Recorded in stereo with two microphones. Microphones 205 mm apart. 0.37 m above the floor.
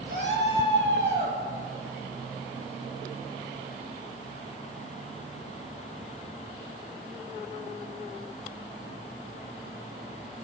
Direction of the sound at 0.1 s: 65° right (ahead or behind).